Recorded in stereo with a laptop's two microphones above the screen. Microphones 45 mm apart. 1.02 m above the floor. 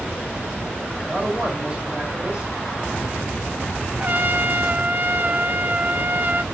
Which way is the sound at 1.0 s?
20° right (ahead or behind).